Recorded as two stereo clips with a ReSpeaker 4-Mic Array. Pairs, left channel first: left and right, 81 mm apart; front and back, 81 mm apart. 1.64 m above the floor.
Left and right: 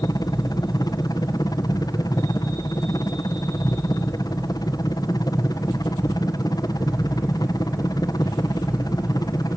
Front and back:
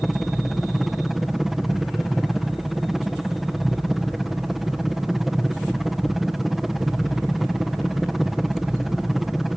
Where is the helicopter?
95° left.